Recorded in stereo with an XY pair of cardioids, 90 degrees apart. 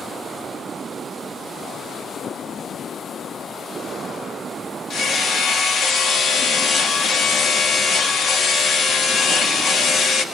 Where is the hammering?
60° left, 2.5 m.